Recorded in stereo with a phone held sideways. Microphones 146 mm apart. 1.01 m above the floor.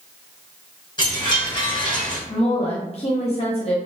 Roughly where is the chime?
Left.